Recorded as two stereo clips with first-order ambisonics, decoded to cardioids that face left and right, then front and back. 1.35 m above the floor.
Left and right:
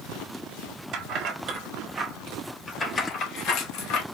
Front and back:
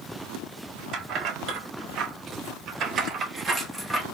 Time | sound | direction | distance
0.9 | keys jangling | 135° right | 1.4 m